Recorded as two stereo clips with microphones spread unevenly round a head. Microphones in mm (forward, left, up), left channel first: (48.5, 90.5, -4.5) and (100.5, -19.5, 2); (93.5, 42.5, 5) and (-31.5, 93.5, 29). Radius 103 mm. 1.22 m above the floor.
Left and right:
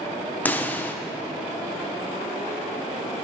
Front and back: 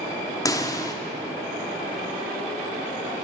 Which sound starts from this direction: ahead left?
A pop, at 0.5 s.